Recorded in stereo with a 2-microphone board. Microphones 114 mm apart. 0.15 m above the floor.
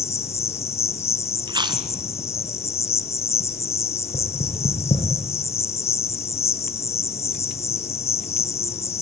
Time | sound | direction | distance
0.0 | an insect | 65° left (ahead or behind) | 1.0 m
1.5 | chewing | 40° right (ahead or behind) | 1.2 m
4.1 | knocking | 80° left | 6 m